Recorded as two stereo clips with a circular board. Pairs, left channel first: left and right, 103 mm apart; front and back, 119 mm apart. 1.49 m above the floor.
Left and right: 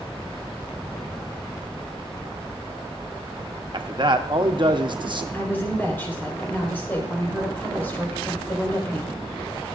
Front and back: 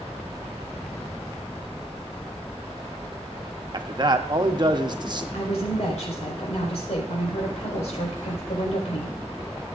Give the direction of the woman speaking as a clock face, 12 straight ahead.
11 o'clock.